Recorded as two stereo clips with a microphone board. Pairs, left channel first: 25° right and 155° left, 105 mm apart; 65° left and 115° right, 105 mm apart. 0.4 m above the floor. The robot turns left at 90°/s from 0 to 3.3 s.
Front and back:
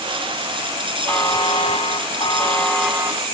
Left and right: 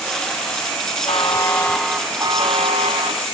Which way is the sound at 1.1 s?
45° left.